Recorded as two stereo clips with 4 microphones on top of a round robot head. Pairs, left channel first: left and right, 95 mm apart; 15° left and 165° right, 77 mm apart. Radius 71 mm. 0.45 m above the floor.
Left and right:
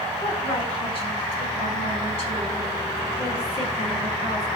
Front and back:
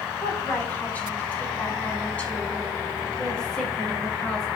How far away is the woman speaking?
About 4 m.